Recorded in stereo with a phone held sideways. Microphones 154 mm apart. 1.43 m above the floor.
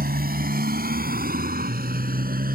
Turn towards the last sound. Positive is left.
turn(degrees=-75)  # may be behind; listen again after turning